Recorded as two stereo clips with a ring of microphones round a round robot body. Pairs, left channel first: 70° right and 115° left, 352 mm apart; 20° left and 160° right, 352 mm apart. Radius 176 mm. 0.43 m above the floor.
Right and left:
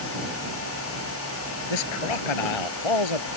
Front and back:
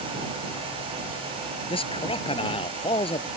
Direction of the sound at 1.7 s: 55° right.